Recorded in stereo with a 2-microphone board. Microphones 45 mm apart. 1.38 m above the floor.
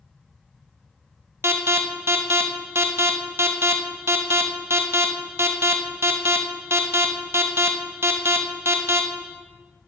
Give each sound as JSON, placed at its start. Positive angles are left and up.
{"t": 1.4, "sound": "an alarm", "side_deg": -75, "distance_m": 1.4}